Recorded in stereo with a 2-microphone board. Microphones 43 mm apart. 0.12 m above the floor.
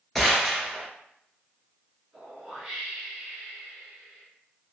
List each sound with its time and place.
0.1 s a gunshot: 5° left (ahead or behind), 1.0 m
2.1 s a whoosh: 15° right (ahead or behind), 1.5 m